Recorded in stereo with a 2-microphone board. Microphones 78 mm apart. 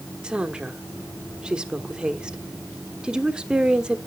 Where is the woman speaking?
10° right (ahead or behind), 1.2 m.